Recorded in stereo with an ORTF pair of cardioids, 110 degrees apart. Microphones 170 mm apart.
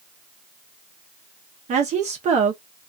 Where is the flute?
No flute in this recording.